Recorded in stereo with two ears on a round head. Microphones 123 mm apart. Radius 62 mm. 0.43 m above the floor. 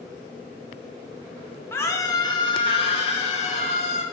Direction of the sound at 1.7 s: 15° left (ahead or behind).